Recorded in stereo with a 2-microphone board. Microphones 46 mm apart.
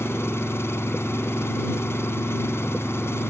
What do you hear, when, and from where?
0.0 s an engine running: 80° left